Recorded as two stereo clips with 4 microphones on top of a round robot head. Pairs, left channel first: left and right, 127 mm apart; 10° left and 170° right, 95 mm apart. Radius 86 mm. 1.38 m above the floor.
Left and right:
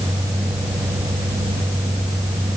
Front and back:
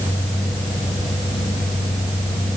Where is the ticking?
I don't hear ticking.